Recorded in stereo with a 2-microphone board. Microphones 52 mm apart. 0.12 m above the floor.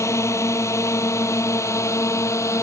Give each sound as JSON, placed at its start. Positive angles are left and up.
{"t": 0.0, "sound": "a drone", "side_deg": 65}